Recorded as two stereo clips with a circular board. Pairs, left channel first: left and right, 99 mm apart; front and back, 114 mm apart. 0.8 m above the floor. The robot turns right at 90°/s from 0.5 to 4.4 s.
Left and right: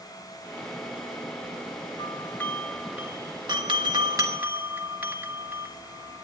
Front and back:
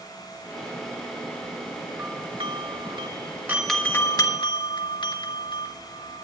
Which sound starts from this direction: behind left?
A doorbell, at 2.0 s.